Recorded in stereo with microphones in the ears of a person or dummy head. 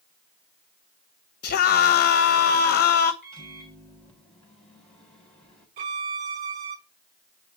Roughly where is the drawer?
I don't hear a drawer.